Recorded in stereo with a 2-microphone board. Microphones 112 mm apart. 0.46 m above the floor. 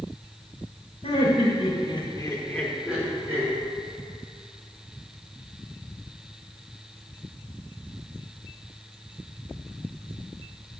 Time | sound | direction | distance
1.0 | laughter | 65° left (ahead or behind) | 1.9 m